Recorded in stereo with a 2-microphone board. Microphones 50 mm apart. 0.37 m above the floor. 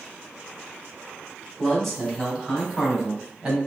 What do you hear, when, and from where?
1.6 s a man speaking: 10° left (ahead or behind), 1.8 m; by 3.6 s 15° right (ahead or behind), 2.5 m